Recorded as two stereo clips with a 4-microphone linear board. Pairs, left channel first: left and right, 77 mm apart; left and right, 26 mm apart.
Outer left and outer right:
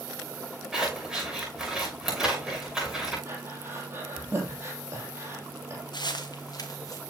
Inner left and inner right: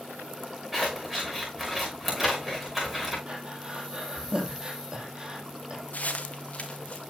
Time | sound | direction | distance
0.7 | scissors | 5° right (ahead or behind) | 6 m
3.3 | breathing | 30° right (ahead or behind) | 3 m
5.9 | footsteps | 70° left (ahead or behind) | 1.8 m